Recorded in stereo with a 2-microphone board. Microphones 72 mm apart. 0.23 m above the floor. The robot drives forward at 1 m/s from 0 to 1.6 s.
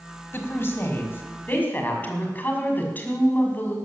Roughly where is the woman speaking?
Left.